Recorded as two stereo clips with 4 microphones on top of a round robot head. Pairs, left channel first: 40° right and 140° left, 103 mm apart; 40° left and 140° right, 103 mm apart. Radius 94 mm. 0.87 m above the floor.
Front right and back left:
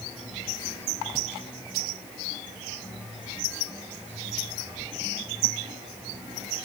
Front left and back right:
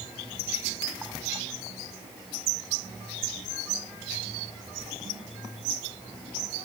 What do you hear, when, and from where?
Only background noise.